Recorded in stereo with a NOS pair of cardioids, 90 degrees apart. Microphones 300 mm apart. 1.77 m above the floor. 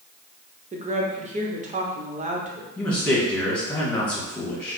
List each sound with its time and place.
0.7 s a woman speaking: 25° right, 1.0 m
2.8 s a man speaking: 5° left, 1.9 m